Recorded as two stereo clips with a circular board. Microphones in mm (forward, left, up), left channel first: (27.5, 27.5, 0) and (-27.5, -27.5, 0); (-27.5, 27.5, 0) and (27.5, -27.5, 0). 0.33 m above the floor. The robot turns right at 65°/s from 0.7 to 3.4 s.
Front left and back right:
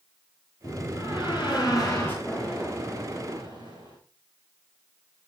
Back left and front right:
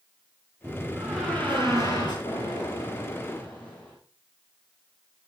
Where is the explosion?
130° left, 6 m; by 4.0 s 155° right, 6 m.